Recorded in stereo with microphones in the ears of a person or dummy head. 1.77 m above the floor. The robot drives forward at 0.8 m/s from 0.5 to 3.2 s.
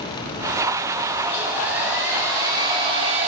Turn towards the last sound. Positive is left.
turn(degrees=-40)  # may be behind; listen again after turning